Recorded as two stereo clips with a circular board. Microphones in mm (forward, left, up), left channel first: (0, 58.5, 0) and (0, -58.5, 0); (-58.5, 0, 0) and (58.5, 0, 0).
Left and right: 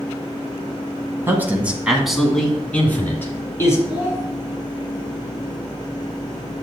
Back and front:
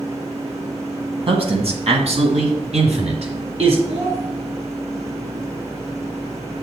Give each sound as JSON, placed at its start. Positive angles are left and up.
{"t": 1.3, "sound": "a man speaking", "azimuth_deg": -25, "distance_m": 1.9}
{"t": 3.9, "sound": "a child speaking", "azimuth_deg": -10, "distance_m": 1.9}